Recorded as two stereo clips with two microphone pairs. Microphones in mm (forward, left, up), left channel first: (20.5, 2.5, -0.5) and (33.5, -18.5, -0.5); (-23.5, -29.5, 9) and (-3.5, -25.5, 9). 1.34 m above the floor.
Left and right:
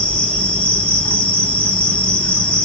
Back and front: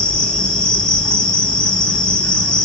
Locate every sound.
0.0 s an insect: 145° left, 0.7 m